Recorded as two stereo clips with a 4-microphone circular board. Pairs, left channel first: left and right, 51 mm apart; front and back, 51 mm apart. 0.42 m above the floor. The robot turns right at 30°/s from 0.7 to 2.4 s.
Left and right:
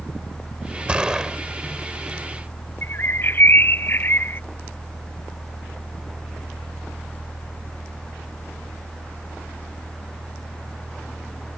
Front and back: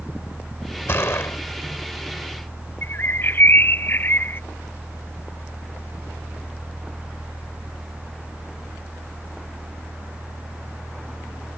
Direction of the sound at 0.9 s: 25° right.